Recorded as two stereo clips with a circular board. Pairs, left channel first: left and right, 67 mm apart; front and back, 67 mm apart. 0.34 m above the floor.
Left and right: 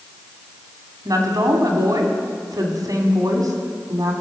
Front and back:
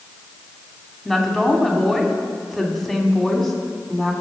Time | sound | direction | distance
1.1 | a woman speaking | 85° right | 2.5 m